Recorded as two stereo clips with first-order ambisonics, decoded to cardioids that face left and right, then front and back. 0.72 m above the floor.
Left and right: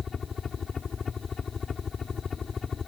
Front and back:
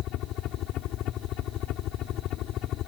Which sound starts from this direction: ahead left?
A helicopter, at 0.0 s.